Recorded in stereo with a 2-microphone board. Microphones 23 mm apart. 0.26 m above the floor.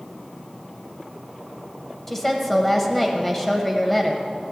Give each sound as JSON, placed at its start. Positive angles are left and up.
{"t": 2.1, "sound": "a woman speaking", "side_deg": 10, "distance_m": 0.9}